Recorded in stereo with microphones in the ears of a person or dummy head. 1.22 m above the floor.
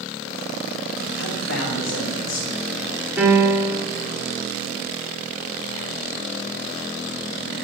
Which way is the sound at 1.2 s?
80° left.